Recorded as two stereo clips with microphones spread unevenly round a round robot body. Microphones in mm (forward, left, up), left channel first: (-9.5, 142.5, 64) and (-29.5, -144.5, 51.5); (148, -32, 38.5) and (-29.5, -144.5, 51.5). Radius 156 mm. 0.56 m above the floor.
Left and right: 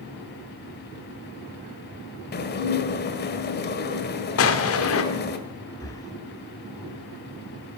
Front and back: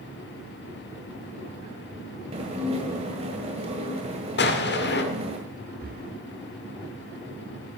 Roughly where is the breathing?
Behind.